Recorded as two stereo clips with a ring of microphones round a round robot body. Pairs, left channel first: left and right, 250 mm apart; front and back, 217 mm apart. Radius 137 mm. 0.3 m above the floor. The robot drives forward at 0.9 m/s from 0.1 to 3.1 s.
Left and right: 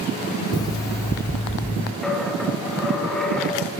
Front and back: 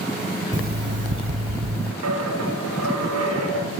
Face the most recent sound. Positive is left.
turn(degrees=180)